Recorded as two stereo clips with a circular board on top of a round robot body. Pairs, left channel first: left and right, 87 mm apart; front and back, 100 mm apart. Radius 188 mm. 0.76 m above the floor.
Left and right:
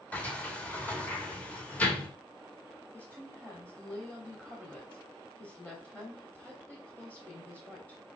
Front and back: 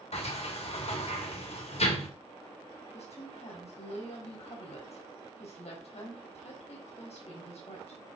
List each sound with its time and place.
0.1 s a sliding door: 15° left, 2 m
2.9 s a woman speaking: 15° left, 3 m